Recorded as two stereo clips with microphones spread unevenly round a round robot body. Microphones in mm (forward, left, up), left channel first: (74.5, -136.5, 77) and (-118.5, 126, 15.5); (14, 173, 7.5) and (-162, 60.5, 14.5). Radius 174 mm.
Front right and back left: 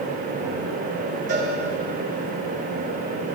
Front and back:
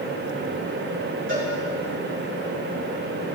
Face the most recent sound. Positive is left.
turn(degrees=-170)